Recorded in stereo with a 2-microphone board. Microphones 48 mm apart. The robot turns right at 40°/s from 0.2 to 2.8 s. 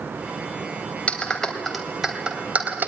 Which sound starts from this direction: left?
A clap, at 1.1 s.